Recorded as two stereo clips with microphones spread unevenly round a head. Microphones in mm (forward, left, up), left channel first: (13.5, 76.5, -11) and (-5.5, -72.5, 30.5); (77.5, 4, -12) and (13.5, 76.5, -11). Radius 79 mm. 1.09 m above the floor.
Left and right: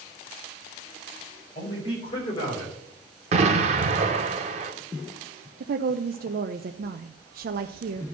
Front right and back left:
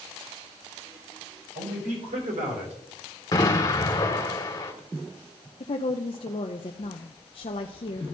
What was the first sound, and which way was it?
A man speaking, 140° left.